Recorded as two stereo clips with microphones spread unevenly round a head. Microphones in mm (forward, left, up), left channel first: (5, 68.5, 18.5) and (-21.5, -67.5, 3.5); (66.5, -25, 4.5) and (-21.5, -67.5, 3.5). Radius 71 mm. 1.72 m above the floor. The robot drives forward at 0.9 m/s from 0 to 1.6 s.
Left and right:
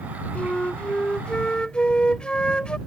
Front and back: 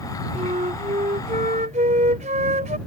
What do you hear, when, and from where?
0.3 s a flute: 160° left